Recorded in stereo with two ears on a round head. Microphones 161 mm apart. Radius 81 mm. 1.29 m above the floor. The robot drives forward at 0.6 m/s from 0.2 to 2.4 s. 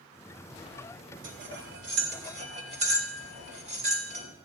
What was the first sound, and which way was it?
Cutlery clinking, 75° right (ahead or behind).